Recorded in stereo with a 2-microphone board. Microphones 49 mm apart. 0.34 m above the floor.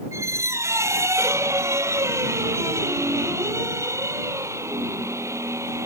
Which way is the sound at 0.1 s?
75° right (ahead or behind).